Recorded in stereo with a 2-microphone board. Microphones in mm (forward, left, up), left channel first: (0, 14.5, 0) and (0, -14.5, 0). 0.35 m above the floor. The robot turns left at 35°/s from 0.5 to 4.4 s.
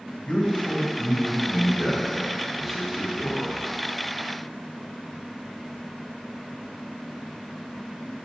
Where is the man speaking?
65° left, 1.6 m; by 3.6 s 45° right, 1.6 m.